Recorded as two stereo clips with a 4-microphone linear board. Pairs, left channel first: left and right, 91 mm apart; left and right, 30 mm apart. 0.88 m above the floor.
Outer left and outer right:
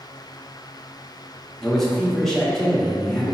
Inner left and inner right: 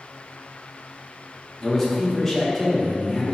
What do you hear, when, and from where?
1.6 s a man speaking: 5° left (ahead or behind), 0.8 m